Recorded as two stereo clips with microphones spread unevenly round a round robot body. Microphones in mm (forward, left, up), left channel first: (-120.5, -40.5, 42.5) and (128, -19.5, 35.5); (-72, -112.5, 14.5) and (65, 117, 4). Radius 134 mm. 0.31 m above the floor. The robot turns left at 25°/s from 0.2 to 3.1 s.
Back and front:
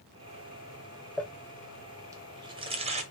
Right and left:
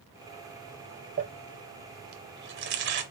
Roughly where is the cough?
I don't hear a cough.